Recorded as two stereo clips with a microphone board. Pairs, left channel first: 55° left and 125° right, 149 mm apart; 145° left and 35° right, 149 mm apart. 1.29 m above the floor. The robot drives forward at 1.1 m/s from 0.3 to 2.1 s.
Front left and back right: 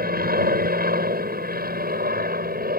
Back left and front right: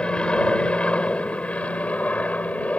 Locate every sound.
0.0 s an aircraft: 130° right; by 2.8 s 135° right